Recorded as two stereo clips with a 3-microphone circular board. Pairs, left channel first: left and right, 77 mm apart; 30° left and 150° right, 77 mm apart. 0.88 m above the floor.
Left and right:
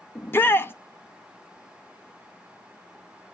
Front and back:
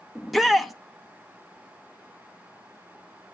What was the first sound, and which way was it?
A shout, 120° left.